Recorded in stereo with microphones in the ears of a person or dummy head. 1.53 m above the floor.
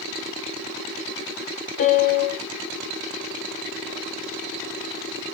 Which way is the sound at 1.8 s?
50° left (ahead or behind).